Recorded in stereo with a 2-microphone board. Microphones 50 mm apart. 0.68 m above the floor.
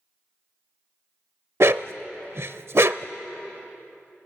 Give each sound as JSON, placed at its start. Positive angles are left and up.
{"t": 1.6, "sound": "a dog barking", "side_deg": -55, "distance_m": 0.6}